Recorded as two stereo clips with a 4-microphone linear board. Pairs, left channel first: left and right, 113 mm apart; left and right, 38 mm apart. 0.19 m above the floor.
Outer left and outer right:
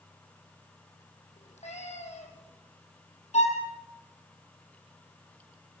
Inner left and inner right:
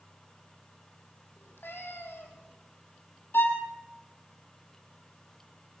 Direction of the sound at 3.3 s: 80° left.